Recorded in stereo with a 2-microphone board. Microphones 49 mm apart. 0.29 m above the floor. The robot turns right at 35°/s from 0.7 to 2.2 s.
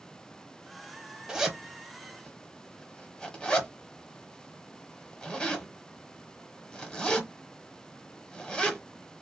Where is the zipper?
10° right (ahead or behind), 0.7 m; by 8.8 s 15° left (ahead or behind), 0.7 m.